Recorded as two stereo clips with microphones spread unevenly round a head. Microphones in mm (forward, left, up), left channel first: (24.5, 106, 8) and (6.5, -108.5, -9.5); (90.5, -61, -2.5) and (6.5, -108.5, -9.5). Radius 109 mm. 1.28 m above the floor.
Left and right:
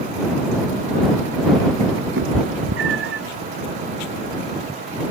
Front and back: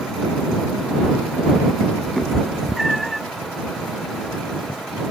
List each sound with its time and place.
2.2 s a cat meowing: 60° right